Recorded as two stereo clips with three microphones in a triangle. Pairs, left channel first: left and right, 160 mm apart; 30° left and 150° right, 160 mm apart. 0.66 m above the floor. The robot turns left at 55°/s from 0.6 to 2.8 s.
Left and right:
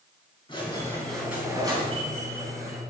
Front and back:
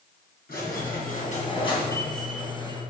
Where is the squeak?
30° left, 2.5 m; by 2.8 s 90° right, 2.5 m.